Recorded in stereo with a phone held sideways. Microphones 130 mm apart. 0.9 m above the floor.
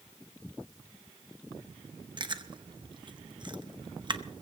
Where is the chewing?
35° right (ahead or behind), 0.9 m.